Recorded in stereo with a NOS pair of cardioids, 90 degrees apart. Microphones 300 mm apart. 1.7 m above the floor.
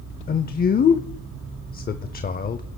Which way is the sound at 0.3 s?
30° left.